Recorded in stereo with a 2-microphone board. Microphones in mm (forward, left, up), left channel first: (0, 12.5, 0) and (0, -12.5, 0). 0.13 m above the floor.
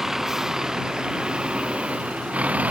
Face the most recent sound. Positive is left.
turn(degrees=-75)  # may be behind; listen again after turning